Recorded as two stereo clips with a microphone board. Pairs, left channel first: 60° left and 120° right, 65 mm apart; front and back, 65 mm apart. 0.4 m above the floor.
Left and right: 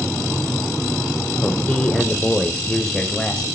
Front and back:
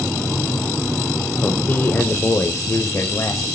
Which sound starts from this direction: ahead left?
A man speaking, at 1.4 s.